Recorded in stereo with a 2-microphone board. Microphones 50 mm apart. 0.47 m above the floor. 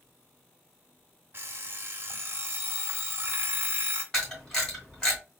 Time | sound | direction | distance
1.3 | an alarm clock | 50° right (ahead or behind) | 0.9 m
4.1 | a camera shutter | 15° left (ahead or behind) | 2.5 m